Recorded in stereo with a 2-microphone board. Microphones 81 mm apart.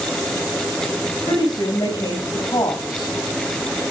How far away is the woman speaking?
About 6.5 m.